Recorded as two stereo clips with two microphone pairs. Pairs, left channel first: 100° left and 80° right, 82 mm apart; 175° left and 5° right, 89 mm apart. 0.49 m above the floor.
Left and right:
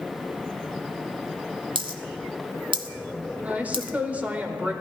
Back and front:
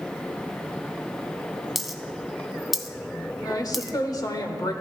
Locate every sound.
1.8 s a dropped coin: 90° right, 0.7 m
3.4 s a woman speaking: 150° right, 1.1 m